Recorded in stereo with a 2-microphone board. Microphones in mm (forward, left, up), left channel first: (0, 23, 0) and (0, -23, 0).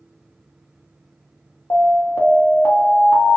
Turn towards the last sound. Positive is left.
turn(degrees=70)  # may be behind; listen again after turning